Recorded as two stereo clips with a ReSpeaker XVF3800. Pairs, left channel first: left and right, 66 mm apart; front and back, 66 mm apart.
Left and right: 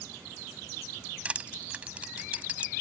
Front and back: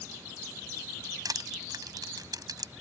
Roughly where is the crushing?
Behind.